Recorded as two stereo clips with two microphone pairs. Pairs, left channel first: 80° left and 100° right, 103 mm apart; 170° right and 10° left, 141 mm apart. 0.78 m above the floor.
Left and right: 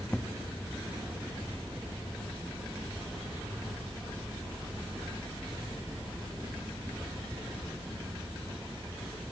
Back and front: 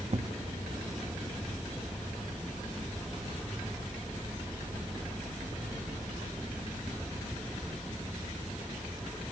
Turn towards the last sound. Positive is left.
turn(degrees=5)